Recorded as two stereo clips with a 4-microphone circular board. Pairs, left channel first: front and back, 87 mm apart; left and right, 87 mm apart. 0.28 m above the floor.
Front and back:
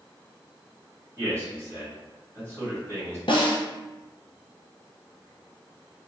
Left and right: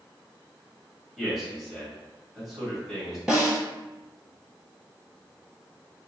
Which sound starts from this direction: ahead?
A snare drum, at 3.3 s.